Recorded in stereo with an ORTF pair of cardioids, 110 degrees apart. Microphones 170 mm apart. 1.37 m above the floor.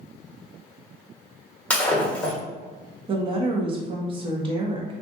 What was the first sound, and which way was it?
Breaking glass, 10° left.